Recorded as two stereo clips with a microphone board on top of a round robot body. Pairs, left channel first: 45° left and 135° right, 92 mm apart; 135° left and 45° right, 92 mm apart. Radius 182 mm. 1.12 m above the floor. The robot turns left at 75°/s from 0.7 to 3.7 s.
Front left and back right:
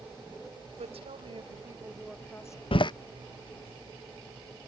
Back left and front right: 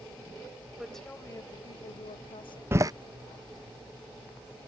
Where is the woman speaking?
125° right; by 2.6 s 95° left.